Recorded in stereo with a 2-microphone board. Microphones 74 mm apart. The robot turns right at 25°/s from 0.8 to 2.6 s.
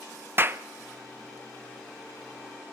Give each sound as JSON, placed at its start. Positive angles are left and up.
{"t": 0.4, "sound": "a clap", "side_deg": -35, "distance_m": 0.7}